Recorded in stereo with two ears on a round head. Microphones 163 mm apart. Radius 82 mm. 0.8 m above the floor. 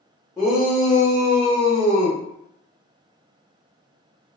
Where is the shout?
Centre (ahead or behind), 0.8 m; by 2.2 s 15° right (ahead or behind), 1.8 m.